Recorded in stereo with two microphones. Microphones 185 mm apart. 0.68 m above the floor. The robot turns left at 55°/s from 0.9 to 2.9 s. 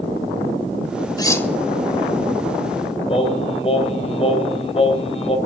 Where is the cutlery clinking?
20° left (ahead or behind), 0.8 m; by 1.5 s 5° left (ahead or behind), 0.8 m.